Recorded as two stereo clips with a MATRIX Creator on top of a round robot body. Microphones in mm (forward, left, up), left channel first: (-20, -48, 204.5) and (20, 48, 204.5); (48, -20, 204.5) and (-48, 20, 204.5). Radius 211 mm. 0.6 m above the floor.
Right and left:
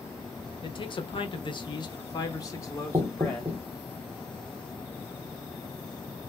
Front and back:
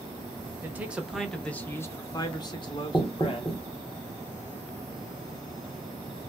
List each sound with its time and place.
0.6 s a man speaking: 135° right, 1.0 m; by 3.6 s 45° right, 1.6 m
2.9 s knocking: 25° left, 1.0 m